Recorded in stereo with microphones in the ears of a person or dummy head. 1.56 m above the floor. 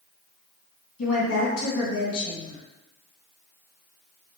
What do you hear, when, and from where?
1.0 s a woman speaking: 75° left (ahead or behind), 2 m